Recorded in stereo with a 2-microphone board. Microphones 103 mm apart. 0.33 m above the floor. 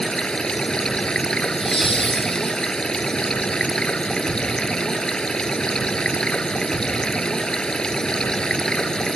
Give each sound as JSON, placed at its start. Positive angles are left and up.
{"t": 0.0, "sound": "running water", "side_deg": 10}
{"t": 1.4, "sound": "laughter", "side_deg": 60}